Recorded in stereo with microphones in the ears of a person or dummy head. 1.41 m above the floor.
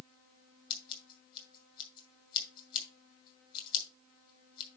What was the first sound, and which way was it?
Scissors, 25° left (ahead or behind).